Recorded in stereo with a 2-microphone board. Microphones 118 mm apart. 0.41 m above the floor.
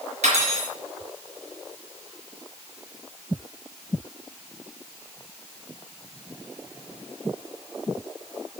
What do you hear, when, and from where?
0.2 s cutlery clinking: 75° right (ahead or behind), 4.5 m